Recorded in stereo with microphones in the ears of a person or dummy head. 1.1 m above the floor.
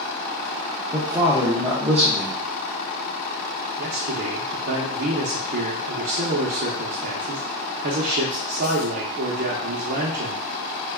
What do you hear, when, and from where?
0.9 s a man speaking: 5° right (ahead or behind), 0.6 m
3.8 s a man speaking: 45° right (ahead or behind), 0.6 m